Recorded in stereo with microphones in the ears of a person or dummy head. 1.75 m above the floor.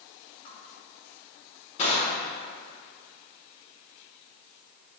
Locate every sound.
0.5 s crushing: 40° left (ahead or behind), 2 m